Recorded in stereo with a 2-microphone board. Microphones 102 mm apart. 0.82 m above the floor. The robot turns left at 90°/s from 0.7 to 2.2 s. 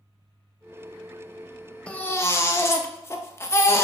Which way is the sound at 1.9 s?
165° left.